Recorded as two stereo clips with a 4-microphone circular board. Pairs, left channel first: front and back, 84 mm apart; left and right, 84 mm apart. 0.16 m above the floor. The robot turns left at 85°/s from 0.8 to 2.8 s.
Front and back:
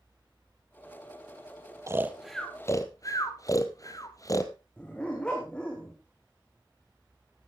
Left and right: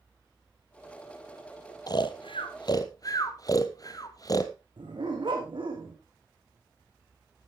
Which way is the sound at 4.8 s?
75° right.